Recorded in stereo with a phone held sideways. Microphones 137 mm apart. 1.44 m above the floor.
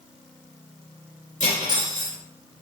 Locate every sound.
1.4 s cutlery clinking: 65° left (ahead or behind), 3 m